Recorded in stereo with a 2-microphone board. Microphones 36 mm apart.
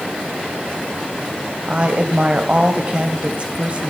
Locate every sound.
1.7 s a woman speaking: 35° right (ahead or behind), 1.2 m